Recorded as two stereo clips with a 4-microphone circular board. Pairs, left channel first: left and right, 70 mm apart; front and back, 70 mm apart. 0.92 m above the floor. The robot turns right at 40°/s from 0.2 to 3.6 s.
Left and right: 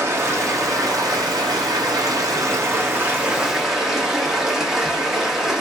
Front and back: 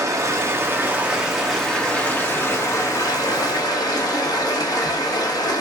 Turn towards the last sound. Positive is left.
turn(degrees=-5)